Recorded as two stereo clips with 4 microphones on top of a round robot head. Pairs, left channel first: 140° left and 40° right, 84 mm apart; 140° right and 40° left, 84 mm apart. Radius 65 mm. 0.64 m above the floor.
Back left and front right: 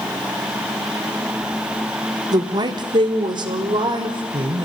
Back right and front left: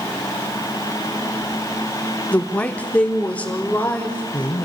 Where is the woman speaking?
70° right, 1.4 m; by 4.7 s 65° right, 3.5 m.